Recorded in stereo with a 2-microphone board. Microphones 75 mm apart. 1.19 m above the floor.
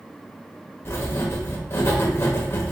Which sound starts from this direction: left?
Writing, at 0.8 s.